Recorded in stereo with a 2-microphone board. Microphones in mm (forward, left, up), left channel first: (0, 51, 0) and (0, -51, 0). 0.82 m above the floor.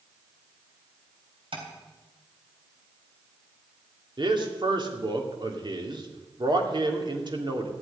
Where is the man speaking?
50° right (ahead or behind), 2.5 m.